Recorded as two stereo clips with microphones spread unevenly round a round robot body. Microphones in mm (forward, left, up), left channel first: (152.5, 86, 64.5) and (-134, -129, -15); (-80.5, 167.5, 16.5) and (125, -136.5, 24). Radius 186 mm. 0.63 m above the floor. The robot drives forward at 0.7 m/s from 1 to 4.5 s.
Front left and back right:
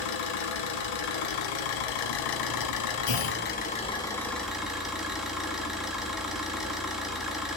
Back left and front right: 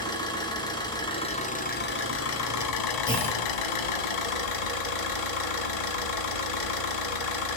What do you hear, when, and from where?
0.0 s an engine running: 45° left, 2 m; by 7.6 s 125° left, 1.7 m
3.1 s a clunk: 45° left, 1.9 m; by 3.4 s 50° left, 1.7 m